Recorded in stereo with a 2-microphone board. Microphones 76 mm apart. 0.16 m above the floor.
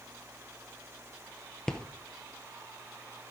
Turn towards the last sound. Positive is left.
turn(degrees=10)  # may be behind; listen again after turning